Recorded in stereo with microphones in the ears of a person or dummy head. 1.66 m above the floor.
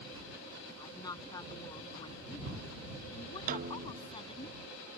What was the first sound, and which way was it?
A woman speaking, 25° left (ahead or behind).